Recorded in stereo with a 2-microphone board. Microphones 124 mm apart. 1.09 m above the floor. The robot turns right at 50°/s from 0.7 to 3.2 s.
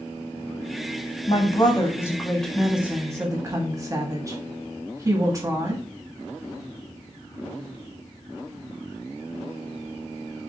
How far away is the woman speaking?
About 1.0 m.